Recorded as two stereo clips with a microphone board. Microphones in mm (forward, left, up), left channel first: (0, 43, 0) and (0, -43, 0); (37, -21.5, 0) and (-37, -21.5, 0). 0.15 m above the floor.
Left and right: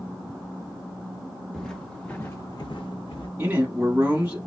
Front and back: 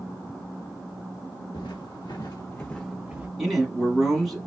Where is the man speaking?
90° right, 1.1 m.